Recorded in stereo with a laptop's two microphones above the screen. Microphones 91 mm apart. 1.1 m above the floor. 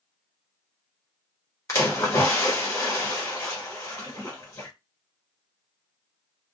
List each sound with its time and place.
1.7 s a splash: 35° left (ahead or behind), 0.8 m